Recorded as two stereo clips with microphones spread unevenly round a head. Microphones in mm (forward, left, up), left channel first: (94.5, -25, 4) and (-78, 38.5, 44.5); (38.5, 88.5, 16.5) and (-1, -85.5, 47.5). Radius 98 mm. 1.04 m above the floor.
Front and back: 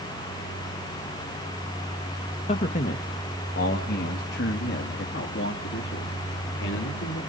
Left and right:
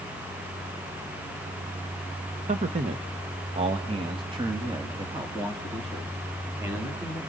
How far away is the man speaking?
About 1.0 m.